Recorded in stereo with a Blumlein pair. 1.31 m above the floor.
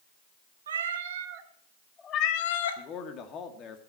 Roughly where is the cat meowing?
Ahead right.